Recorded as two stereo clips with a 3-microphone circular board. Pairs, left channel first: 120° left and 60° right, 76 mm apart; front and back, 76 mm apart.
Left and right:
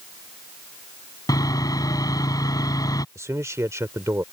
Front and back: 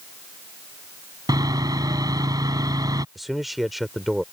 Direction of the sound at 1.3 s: 150° left.